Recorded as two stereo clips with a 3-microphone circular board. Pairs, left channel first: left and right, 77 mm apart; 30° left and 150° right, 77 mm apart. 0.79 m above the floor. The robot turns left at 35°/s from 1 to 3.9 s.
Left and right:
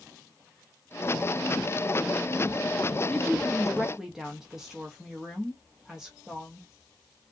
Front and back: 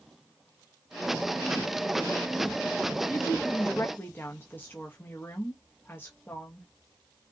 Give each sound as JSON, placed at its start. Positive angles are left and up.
{"t": 3.1, "sound": "a woman speaking", "azimuth_deg": 20, "distance_m": 0.8}